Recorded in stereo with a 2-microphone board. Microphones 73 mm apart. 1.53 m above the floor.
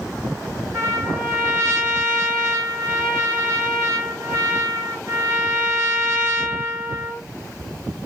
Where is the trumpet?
40° right (ahead or behind), 2 m.